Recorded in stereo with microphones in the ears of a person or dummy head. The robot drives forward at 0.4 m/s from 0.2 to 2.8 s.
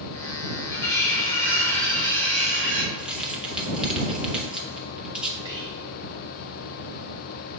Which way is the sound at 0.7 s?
10° left (ahead or behind).